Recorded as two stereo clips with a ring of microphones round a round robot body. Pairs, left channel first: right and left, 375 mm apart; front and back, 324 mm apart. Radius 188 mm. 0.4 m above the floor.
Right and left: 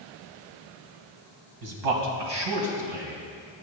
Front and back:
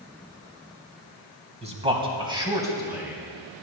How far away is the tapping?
No tapping in this recording.